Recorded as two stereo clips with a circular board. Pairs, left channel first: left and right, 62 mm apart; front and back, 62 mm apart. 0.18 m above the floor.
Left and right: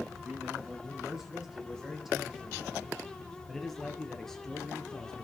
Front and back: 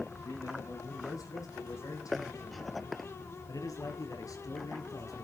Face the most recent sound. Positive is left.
turn(degrees=10)